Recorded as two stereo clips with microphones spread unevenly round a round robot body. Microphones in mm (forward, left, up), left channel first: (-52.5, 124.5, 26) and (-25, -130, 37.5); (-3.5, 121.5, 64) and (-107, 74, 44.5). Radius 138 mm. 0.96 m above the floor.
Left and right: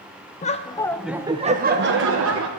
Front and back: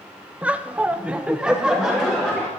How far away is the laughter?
About 1.0 m.